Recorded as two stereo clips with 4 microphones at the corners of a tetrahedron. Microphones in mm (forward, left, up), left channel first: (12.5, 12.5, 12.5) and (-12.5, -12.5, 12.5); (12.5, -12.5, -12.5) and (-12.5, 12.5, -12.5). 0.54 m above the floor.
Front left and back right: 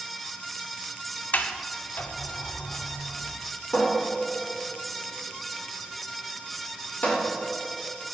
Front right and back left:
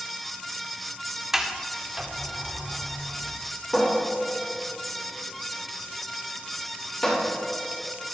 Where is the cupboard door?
30° left, 2 m.